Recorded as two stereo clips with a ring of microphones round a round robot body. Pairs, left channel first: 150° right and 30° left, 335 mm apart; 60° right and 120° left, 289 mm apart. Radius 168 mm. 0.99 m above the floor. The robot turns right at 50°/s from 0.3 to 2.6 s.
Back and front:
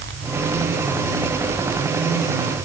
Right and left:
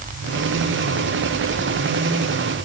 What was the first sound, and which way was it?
Only background noise.